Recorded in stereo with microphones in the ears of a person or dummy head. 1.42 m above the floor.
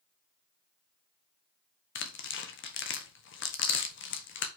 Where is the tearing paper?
60° left (ahead or behind), 1.0 m.